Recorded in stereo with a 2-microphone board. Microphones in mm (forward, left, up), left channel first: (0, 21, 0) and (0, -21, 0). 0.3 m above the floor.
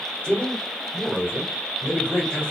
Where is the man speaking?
20° left (ahead or behind), 1.2 m.